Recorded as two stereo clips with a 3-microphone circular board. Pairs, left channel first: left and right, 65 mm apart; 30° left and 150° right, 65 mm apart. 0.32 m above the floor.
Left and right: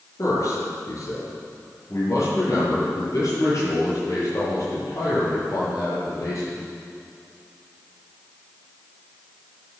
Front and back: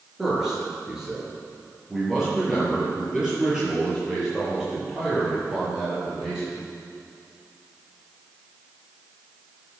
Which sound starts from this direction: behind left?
A man speaking, at 0.2 s.